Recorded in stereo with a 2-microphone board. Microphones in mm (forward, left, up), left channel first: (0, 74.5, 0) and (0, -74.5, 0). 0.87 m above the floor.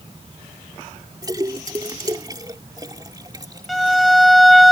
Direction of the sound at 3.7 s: Centre (ahead or behind).